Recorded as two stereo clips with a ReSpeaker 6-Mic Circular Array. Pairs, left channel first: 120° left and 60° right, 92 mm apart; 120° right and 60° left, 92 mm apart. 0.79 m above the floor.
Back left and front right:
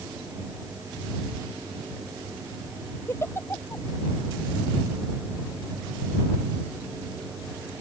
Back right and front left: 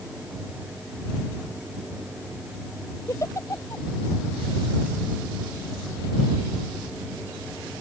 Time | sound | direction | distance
3.1 | a giggle | 175° right | ?